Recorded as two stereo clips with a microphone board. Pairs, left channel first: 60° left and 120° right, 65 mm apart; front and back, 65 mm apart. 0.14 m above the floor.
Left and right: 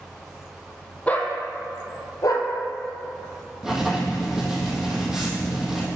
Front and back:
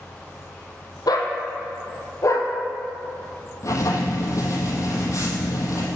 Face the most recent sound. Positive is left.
turn(degrees=-35)